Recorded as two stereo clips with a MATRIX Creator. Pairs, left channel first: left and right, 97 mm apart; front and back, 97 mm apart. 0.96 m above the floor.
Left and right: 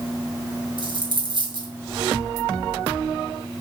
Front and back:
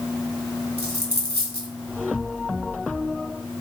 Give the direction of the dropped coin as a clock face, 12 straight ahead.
4 o'clock.